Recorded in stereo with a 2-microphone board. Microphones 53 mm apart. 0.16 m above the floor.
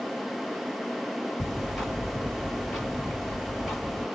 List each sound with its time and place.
1.4 s ticking: centre (ahead or behind), 2.5 m